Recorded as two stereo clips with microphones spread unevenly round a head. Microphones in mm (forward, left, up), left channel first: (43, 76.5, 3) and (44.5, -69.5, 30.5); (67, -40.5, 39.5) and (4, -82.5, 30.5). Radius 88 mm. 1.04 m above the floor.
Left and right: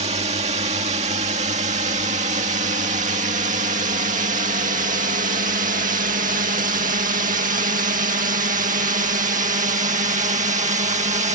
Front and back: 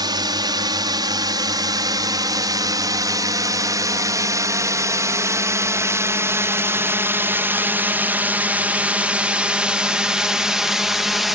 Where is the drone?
145° right; by 11.4 s 65° right.